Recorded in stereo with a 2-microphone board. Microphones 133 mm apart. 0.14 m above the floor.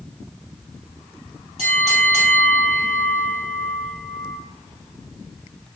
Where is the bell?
55° right (ahead or behind), 2.5 m.